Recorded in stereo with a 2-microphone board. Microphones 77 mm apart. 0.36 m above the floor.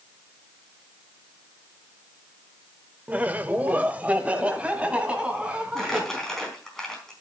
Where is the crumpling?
10° left (ahead or behind), 4 m.